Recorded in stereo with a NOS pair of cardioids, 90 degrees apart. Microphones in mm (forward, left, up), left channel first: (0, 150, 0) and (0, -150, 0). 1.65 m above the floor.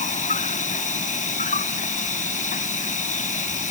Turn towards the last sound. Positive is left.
turn(degrees=25)